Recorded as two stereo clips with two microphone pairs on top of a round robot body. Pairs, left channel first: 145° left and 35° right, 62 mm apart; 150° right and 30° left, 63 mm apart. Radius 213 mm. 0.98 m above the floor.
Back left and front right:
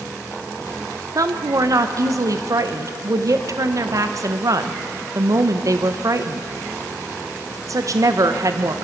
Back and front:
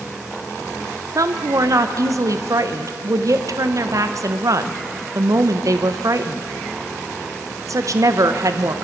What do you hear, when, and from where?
1.1 s a woman speaking: straight ahead, 1.1 m